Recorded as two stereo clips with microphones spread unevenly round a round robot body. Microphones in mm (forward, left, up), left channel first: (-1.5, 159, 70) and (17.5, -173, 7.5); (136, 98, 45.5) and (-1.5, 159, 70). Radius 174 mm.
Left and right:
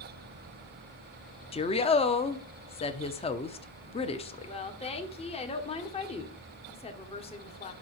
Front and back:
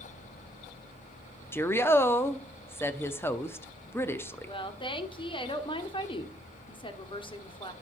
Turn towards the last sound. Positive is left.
turn(degrees=15)